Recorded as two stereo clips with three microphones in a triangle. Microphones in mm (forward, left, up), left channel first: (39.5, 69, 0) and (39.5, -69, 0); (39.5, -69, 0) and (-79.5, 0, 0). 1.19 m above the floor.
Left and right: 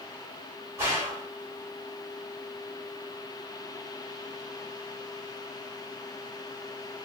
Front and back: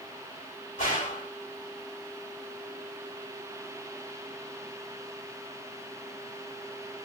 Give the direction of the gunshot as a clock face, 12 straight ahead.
1 o'clock.